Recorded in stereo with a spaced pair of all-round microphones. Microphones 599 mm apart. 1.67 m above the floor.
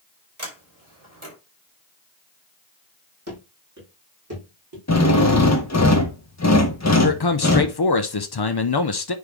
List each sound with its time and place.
0.4 s a sliding door: 50° right (ahead or behind), 4 m
3.3 s running footsteps: 25° right (ahead or behind), 3.5 m; by 4.8 s 35° right (ahead or behind), 5 m
4.9 s a drill: 25° left (ahead or behind), 1.1 m
7.0 s a man speaking: 40° left (ahead or behind), 0.7 m